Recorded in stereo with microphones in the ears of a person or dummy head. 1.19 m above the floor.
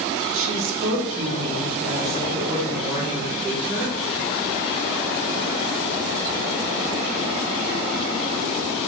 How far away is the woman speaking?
About 1.1 m.